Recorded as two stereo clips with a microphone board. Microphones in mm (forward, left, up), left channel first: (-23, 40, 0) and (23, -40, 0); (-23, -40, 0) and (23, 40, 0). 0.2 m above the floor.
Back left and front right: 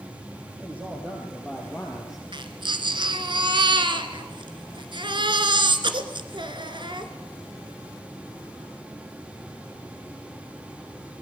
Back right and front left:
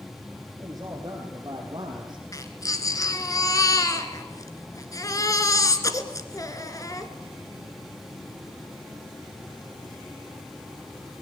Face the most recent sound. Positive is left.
turn(degrees=-75)